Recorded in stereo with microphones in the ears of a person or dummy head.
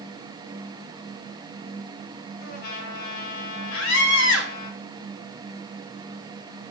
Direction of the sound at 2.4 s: 55° left (ahead or behind).